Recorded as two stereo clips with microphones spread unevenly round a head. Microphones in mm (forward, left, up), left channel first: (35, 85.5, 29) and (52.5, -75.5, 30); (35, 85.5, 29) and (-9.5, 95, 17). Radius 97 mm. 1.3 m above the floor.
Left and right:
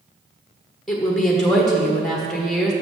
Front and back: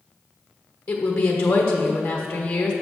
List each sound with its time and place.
0.9 s a woman speaking: 10° left, 1.2 m